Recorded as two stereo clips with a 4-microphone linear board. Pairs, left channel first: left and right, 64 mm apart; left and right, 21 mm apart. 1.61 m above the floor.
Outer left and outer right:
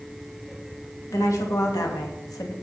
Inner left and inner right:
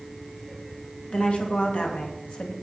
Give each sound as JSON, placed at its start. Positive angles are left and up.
{"t": 1.1, "sound": "a woman speaking", "side_deg": 55, "distance_m": 2.5}